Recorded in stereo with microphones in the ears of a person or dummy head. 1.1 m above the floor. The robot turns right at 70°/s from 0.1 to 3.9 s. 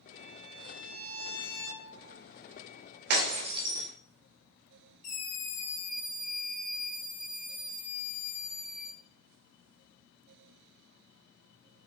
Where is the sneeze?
No sneeze in this recording.